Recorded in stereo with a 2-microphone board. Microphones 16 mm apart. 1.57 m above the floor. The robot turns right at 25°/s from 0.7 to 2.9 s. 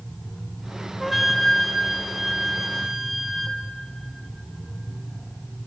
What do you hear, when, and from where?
1.0 s a flute: centre (ahead or behind), 0.7 m; by 3.6 s 15° right (ahead or behind), 0.7 m